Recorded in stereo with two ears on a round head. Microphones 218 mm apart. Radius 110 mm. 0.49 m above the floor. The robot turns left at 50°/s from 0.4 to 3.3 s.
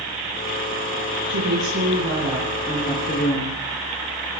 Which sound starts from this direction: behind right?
A woman speaking, at 1.3 s.